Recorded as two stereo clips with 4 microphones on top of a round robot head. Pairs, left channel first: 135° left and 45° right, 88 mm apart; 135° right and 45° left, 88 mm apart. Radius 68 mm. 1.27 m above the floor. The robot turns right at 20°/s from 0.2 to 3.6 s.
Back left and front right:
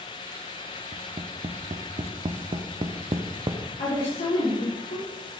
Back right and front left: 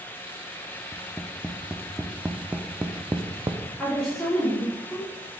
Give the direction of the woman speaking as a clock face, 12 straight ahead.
7 o'clock.